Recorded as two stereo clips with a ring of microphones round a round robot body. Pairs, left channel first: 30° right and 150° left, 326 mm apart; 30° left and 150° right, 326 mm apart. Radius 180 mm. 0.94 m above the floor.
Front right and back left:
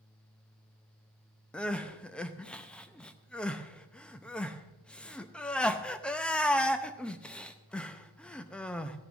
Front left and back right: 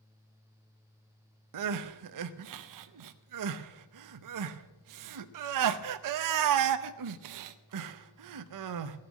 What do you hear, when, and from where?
1.5 s crying: 115° right, 0.7 m